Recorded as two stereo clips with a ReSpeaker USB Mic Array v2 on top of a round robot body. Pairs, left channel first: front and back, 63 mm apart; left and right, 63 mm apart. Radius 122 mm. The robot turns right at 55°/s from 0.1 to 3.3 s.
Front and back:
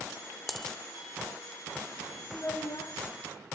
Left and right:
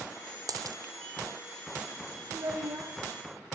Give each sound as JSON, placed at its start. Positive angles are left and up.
{"t": 0.5, "sound": "a dropped coin", "azimuth_deg": -90, "distance_m": 0.9}
{"t": 2.3, "sound": "a child speaking", "azimuth_deg": -65, "distance_m": 1.1}